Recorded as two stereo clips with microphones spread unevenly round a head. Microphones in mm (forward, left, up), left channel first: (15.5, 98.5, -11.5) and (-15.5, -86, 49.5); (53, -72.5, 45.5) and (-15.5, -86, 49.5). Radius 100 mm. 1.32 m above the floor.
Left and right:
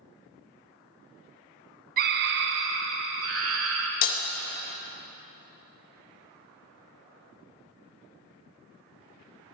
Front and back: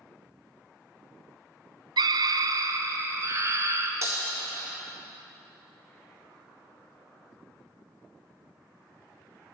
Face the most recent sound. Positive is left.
turn(degrees=135)